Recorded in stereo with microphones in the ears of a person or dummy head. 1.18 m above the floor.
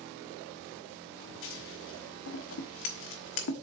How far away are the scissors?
About 1.1 m.